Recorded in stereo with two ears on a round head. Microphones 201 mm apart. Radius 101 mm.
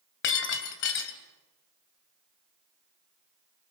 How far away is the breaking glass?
About 2.5 m.